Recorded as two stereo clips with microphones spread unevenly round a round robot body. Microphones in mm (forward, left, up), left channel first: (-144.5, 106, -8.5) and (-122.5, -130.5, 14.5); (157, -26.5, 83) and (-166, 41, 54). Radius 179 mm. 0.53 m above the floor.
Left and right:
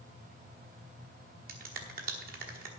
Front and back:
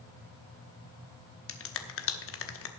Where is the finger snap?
40° right, 1.1 m.